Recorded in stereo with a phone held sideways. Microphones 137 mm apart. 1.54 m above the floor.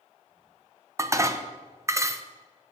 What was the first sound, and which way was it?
Dishes clattering, 20° right (ahead or behind).